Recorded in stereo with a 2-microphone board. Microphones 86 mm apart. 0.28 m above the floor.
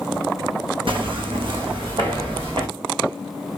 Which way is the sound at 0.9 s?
80° right.